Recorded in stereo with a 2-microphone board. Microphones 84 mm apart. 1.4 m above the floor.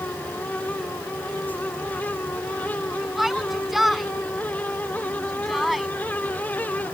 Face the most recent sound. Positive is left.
turn(degrees=0)  # may be behind; listen again after turning